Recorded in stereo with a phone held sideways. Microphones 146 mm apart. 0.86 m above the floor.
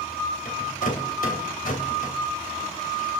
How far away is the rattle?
About 3 m.